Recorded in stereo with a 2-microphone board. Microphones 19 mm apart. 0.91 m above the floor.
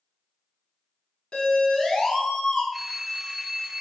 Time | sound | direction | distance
1.3 | a siren | 50° left (ahead or behind) | 9 m
2.7 | a phone ringing | 10° right (ahead or behind) | 3.5 m